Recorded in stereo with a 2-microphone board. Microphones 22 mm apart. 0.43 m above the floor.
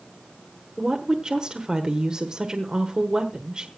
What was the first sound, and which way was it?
A woman speaking, 40° right (ahead or behind).